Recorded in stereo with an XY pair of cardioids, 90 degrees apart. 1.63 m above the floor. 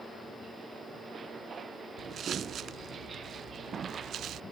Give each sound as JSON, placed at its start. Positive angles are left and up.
{"t": 2.0, "sound": "footsteps", "azimuth_deg": -65}